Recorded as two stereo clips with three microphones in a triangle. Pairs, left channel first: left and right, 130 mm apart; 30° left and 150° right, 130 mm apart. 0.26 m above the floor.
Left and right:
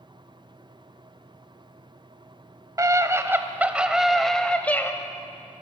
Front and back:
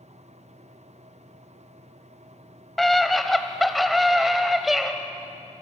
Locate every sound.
2.8 s a scream: 55° right, 1.5 m; by 4.9 s 125° left, 1.3 m